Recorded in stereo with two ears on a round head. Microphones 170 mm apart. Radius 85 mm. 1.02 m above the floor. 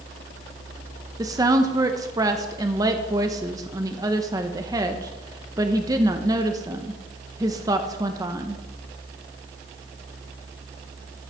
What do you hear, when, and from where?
1.2 s a woman speaking: 20° right (ahead or behind), 0.7 m